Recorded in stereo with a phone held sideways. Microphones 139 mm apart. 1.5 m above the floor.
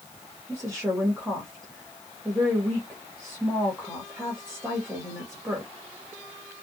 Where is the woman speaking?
Centre (ahead or behind), 1.4 m.